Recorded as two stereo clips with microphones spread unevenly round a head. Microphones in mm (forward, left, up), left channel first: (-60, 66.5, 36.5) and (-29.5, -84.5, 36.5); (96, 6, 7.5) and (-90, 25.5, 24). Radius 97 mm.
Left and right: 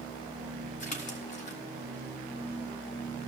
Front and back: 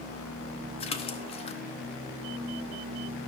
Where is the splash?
55° left, 1.0 m.